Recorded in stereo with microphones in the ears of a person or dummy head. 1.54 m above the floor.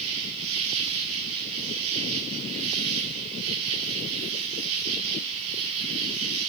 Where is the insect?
65° right (ahead or behind), 3.5 m.